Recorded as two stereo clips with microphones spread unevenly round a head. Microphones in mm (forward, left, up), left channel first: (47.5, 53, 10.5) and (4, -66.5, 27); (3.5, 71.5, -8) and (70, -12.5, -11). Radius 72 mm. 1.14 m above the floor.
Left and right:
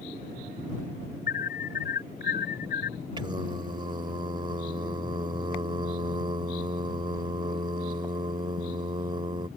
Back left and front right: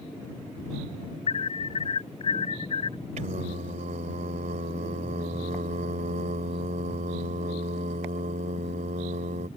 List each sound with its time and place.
1.3 s an alarm: 105° left
3.2 s singing: 60° right